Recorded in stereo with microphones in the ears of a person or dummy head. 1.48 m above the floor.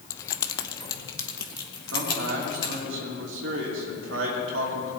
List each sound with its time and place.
0.1 s keys jangling: 15° left (ahead or behind), 0.5 m; by 2.8 s 25° left (ahead or behind), 3 m
1.9 s a man speaking: 75° right (ahead or behind), 3 m